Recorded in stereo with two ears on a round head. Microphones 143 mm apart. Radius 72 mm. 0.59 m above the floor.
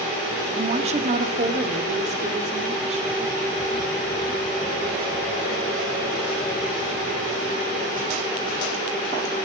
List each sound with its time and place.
0.6 s a woman speaking: 35° right (ahead or behind), 1.0 m; by 3.2 s 40° right (ahead or behind), 3 m